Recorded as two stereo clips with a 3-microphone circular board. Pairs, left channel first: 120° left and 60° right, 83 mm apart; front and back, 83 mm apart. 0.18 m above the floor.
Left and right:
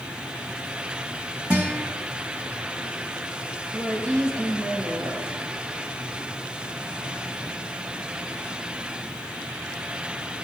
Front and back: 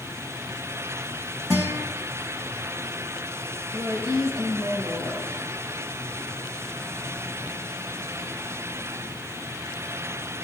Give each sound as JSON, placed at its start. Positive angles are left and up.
{"t": 1.5, "sound": "a guitar", "azimuth_deg": -130, "distance_m": 4.5}
{"t": 3.7, "sound": "a woman speaking", "azimuth_deg": -135, "distance_m": 5.0}